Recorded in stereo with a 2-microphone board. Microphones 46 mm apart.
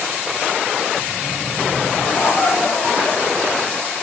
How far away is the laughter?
About 1.9 m.